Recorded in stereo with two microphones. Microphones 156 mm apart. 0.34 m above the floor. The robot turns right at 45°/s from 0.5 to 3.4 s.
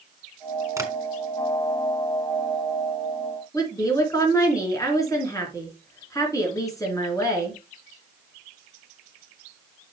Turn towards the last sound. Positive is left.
turn(degrees=20)  # may be behind; listen again after turning